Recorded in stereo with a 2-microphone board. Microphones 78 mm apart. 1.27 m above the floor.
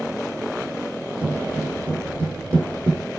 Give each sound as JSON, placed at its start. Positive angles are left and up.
{"t": 1.2, "sound": "footsteps", "side_deg": -20, "distance_m": 4.0}